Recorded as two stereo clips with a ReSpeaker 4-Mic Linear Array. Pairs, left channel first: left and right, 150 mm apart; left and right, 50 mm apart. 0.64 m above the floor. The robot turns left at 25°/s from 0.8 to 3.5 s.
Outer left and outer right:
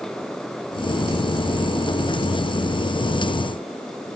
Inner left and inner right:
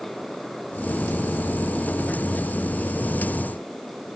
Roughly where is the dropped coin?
No dropped coin in this recording.